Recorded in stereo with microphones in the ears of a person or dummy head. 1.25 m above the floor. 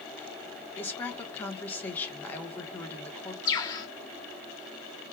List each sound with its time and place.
0.8 s a woman speaking: 10° left (ahead or behind), 1.4 m
3.5 s a bird: 25° left (ahead or behind), 1.8 m